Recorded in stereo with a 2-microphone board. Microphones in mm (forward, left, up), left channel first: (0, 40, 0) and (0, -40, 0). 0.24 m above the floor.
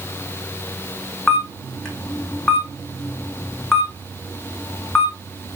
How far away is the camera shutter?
About 2 m.